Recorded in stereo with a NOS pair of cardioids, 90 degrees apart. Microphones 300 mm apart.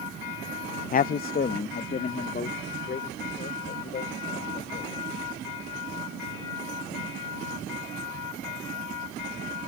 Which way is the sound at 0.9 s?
30° left.